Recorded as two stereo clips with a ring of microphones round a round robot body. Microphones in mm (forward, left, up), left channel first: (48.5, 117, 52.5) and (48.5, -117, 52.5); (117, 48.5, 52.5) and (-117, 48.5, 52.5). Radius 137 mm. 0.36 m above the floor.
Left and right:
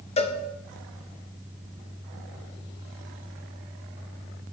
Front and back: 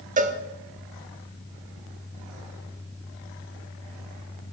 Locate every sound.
0.2 s a cowbell: 140° left, 0.6 m